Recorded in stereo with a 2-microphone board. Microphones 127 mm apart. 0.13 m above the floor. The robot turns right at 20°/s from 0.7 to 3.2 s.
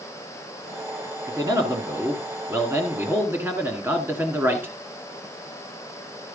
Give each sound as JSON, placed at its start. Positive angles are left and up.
{"t": 1.3, "sound": "a man speaking", "side_deg": -30, "distance_m": 1.6}